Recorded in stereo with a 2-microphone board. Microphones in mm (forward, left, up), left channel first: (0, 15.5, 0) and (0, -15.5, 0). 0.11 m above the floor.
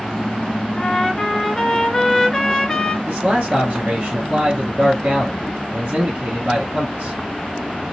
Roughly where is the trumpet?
Centre.